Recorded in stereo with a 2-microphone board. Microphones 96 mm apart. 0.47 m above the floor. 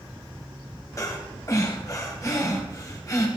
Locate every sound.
1.0 s breathing: 35° left (ahead or behind), 3.5 m